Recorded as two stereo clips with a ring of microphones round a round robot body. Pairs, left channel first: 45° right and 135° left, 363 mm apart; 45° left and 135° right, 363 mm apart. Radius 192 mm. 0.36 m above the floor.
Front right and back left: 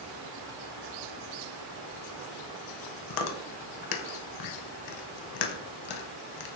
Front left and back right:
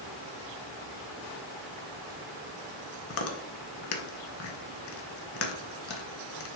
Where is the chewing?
10° right, 0.6 m.